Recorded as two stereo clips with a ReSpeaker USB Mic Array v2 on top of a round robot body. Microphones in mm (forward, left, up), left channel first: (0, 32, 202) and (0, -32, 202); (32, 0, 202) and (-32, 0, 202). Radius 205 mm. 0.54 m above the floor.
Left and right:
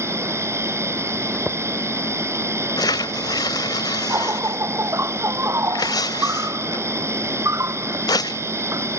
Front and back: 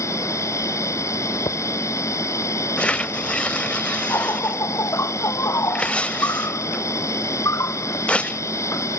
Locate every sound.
0.0 s an insect: 40° right
1.3 s footsteps: straight ahead
2.8 s tearing paper: 75° left